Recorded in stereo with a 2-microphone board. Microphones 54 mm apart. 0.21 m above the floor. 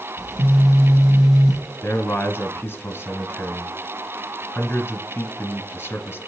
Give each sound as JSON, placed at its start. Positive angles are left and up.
{"t": 0.2, "sound": "a phone buzzing", "side_deg": -15, "distance_m": 3.5}
{"t": 1.8, "sound": "a man speaking", "side_deg": 35, "distance_m": 2.0}